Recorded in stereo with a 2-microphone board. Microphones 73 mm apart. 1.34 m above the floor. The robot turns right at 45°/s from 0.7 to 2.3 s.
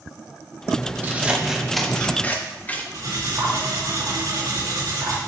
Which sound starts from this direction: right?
Cutlery clinking, at 2.9 s.